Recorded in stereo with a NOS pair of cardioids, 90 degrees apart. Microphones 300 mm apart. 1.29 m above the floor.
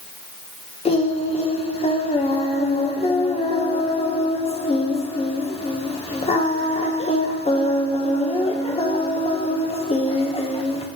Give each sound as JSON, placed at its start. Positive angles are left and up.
{"t": 0.8, "sound": "singing", "azimuth_deg": 20, "distance_m": 1.2}